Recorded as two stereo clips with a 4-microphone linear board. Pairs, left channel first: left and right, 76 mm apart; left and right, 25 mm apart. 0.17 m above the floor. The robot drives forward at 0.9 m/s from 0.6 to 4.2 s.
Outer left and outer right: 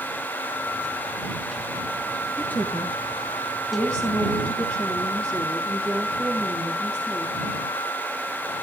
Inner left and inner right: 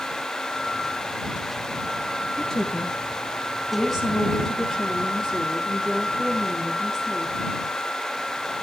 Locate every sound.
2.4 s a woman speaking: 25° left (ahead or behind), 4 m; by 7.3 s 20° left (ahead or behind), 5.5 m